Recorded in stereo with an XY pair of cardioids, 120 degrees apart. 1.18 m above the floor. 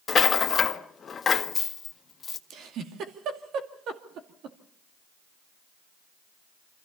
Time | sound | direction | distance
0.1 | a rattle | 35° left | 1.5 m
2.5 | a giggle | 65° right | 2.5 m